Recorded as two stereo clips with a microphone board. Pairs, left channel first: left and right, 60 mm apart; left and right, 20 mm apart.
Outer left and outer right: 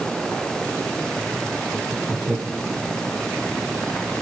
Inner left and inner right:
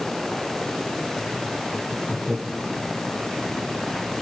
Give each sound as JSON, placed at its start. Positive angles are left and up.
{"t": 1.7, "sound": "laughter", "side_deg": -50, "distance_m": 5.5}